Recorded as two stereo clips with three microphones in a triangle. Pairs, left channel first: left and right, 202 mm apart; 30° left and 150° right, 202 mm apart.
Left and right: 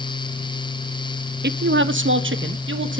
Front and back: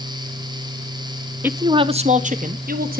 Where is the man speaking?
70° right, 0.7 m; by 3.0 s 105° right, 1.6 m.